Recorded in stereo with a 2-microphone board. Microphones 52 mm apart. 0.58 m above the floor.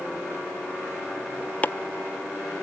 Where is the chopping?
30° left (ahead or behind), 0.5 m.